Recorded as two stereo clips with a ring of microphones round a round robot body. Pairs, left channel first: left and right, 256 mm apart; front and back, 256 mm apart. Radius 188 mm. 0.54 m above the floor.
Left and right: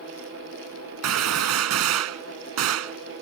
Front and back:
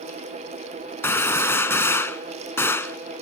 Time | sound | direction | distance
1.0 | a gunshot | 80° right | ?